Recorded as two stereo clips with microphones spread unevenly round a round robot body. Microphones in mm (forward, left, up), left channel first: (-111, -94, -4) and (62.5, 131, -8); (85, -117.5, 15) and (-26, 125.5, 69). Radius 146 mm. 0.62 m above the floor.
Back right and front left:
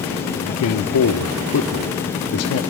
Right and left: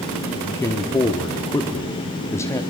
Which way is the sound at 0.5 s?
130° right.